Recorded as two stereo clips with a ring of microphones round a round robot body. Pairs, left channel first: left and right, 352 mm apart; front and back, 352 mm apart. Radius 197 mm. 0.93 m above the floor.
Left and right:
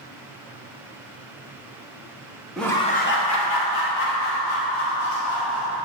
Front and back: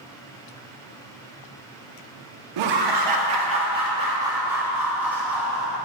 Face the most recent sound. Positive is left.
turn(degrees=80)